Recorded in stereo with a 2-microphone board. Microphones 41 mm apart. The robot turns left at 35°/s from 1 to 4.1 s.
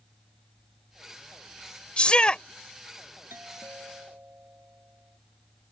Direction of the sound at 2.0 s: 30° left (ahead or behind).